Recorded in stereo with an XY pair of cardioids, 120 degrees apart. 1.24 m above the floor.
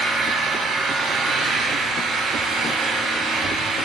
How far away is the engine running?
About 3 m.